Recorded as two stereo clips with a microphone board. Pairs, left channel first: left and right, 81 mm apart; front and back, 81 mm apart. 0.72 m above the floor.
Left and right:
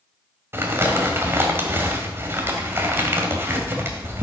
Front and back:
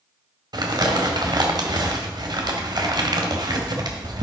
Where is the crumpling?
150° right, 1.7 m.